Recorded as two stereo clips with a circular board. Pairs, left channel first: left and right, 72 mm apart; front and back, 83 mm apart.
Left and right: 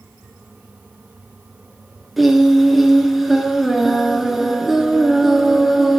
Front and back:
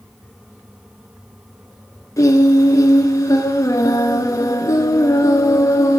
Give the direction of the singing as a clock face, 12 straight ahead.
12 o'clock.